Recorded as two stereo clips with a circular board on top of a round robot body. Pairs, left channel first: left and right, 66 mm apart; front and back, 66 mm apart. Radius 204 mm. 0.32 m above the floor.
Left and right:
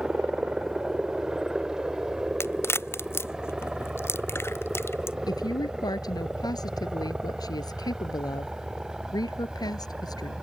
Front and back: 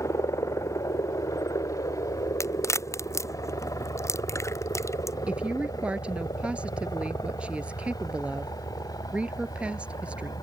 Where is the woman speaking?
105° left.